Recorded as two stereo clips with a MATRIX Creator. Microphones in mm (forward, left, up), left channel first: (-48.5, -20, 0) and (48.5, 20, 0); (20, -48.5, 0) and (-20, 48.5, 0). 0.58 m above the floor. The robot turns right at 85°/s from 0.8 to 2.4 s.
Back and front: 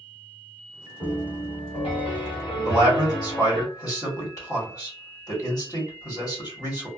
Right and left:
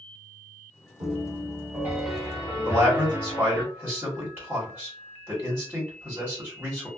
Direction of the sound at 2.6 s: 175° left.